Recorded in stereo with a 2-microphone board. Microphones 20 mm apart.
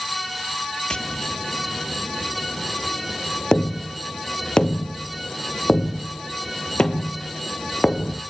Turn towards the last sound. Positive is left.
turn(degrees=55)  # may be behind; listen again after turning